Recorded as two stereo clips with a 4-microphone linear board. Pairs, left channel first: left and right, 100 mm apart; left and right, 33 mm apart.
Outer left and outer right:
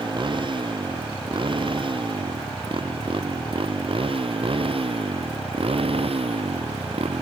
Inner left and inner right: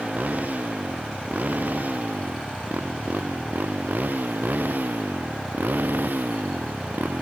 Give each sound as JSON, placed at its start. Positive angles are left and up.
{"t": 0.0, "sound": "a motorcycle", "side_deg": -50}